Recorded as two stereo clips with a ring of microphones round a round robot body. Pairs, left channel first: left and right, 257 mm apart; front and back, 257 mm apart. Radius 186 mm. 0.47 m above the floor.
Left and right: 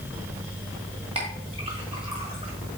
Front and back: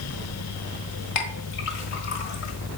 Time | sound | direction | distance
1.1 | a clink | 20° right | 1.4 m